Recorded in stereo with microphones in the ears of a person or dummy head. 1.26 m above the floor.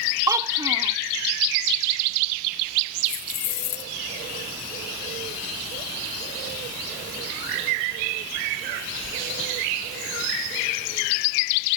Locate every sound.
0.3 s a child speaking: 15° right (ahead or behind)
3.0 s keys jangling: 40° left (ahead or behind)